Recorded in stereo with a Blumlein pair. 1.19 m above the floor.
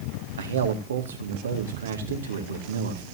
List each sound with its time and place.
0.4 s a man speaking: 65° right, 2 m